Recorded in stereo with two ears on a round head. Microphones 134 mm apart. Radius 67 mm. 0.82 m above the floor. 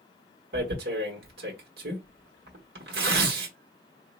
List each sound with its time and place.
0.5 s tearing paper: 70° right (ahead or behind), 1.2 m